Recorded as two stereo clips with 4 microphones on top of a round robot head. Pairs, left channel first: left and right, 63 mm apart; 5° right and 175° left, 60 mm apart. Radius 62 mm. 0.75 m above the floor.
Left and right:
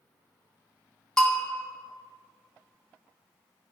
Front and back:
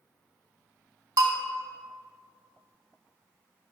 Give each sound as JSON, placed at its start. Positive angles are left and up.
{"t": 1.2, "sound": "a bell", "azimuth_deg": 165, "distance_m": 0.9}